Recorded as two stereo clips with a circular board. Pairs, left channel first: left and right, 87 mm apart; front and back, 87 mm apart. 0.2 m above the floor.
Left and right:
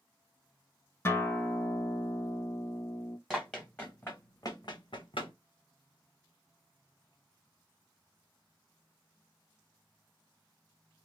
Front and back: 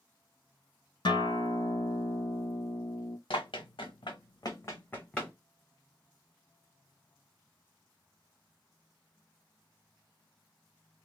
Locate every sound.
1.1 s a guitar: 30° left, 0.5 m
3.3 s running footsteps: straight ahead, 1.1 m; by 5.3 s 85° left, 0.9 m